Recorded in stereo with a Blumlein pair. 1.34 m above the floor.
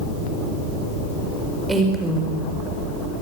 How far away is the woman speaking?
About 4.5 m.